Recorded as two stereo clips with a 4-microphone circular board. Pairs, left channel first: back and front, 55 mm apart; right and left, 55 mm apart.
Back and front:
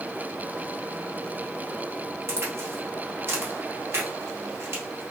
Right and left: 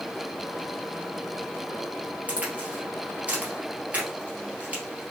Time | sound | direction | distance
2.3 | a crack | 30° left | 1.9 m